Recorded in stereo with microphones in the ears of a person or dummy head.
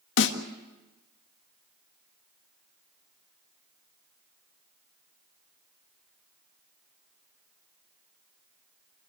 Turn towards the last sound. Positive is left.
turn(degrees=65)  # may be behind; listen again after turning